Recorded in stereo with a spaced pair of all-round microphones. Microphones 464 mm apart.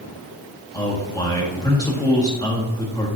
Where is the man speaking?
10° left (ahead or behind), 1.7 m.